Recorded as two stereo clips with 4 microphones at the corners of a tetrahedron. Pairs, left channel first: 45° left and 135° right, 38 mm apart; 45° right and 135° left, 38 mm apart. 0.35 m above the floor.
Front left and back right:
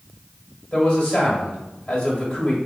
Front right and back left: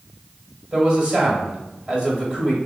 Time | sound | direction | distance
0.7 | a man speaking | 90° left | 1.4 m